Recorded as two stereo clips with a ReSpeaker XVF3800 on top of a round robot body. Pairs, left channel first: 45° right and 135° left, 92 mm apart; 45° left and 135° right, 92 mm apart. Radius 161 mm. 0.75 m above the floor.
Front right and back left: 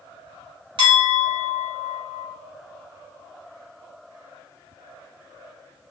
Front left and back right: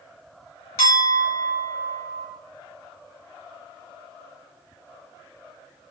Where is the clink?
105° left, 1.2 m.